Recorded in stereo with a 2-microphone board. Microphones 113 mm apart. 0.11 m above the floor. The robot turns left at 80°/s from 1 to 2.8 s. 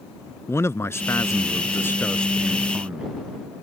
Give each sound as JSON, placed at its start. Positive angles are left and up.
{"t": 0.5, "sound": "a man speaking", "side_deg": 25}